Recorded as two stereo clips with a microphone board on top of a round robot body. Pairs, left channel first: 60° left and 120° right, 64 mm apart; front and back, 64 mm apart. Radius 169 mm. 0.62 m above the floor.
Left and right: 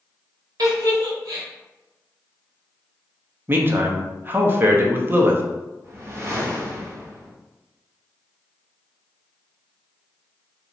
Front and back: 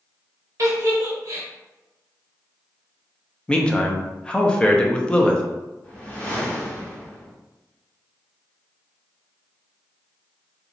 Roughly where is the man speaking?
Right.